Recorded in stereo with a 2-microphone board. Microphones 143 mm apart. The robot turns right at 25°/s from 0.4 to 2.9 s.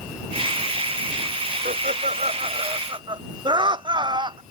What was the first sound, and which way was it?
Laughter, 60° right.